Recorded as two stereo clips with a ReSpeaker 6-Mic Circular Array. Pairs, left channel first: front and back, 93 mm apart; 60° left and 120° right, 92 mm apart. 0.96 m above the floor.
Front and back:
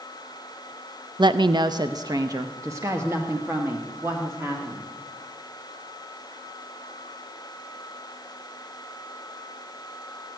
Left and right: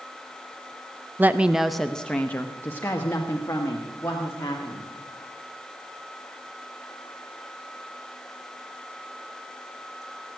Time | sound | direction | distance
1.2 | a woman speaking | 175° left | 0.5 m